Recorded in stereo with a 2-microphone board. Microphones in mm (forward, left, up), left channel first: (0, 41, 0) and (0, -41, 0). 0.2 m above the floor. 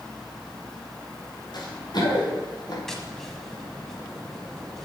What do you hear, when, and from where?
1.5 s running footsteps: 60° left (ahead or behind), 3.5 m; by 2.8 s 50° left (ahead or behind), 4.5 m
2.9 s tapping: 5° left (ahead or behind), 1.3 m